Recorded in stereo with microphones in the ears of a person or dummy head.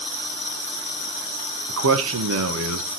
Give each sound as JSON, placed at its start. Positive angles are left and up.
{"t": 1.7, "sound": "a man speaking", "side_deg": -70, "distance_m": 1.5}